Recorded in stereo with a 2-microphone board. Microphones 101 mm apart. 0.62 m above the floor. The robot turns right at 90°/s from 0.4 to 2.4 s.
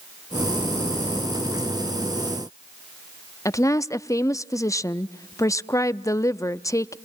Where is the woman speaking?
30° left (ahead or behind), 0.6 m.